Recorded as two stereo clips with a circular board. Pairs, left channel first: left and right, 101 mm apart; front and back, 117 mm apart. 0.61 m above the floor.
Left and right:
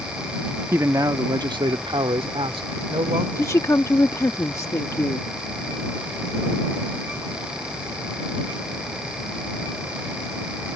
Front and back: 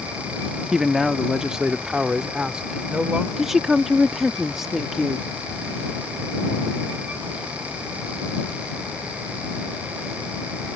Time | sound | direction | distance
0.7 | a man speaking | 95° right | ?
3.4 | a woman speaking | 95° left | ?